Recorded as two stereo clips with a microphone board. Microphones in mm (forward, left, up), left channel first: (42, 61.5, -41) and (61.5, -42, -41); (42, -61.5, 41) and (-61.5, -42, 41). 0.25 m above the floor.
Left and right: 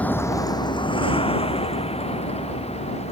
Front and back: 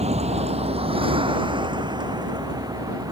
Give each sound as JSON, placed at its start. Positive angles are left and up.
{"t": 0.0, "sound": "a vehicle", "azimuth_deg": 180}